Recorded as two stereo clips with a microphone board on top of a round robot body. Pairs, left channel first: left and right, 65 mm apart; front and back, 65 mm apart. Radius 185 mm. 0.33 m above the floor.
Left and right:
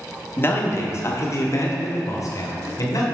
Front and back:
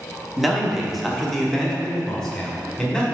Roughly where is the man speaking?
Left.